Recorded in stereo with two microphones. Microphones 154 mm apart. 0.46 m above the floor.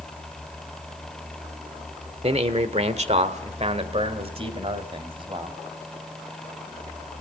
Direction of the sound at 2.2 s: 40° right (ahead or behind).